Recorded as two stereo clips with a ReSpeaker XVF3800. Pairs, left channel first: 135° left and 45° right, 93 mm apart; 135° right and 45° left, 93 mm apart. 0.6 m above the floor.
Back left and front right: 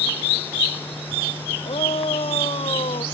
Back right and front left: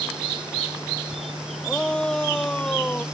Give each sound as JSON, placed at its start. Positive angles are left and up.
{"t": 1.6, "sound": "a shout", "azimuth_deg": 145}